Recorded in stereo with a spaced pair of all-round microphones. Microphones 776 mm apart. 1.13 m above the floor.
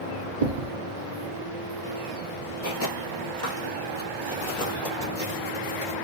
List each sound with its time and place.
0.4 s a thud: 50° right (ahead or behind), 1.0 m
2.6 s footsteps: 20° left (ahead or behind), 1.2 m; by 6.0 s 55° left (ahead or behind), 2.5 m